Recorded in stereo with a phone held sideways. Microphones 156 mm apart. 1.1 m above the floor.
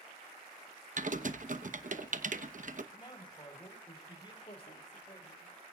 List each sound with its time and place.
1.0 s typing on a keyboard: 55° right (ahead or behind), 0.9 m
2.9 s a man speaking: 30° left (ahead or behind), 4 m
4.4 s a woman speaking: 40° left (ahead or behind), 2.5 m